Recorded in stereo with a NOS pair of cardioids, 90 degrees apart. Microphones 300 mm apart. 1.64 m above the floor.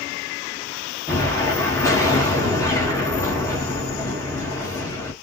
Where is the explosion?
10° left, 1.8 m.